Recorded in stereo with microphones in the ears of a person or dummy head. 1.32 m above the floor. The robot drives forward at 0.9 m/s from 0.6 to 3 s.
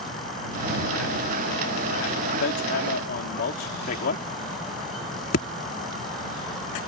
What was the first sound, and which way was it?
Hammering, 70° left (ahead or behind).